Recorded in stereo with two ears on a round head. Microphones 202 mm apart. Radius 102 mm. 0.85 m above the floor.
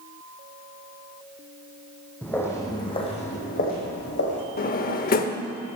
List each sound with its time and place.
2.2 s footsteps: 5° left (ahead or behind), 2.5 m; by 4.5 s 55° left (ahead or behind), 2.5 m
4.6 s a drawer: 40° left (ahead or behind), 0.8 m